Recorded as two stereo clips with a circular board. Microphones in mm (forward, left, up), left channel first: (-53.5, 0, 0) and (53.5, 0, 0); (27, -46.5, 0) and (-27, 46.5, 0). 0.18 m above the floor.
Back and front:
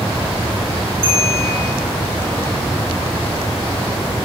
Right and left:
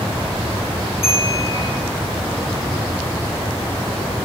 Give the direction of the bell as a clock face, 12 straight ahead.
12 o'clock.